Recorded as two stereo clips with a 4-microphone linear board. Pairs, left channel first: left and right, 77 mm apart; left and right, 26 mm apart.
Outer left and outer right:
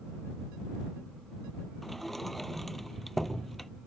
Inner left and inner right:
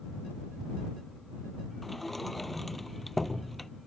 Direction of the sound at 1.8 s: 5° left (ahead or behind).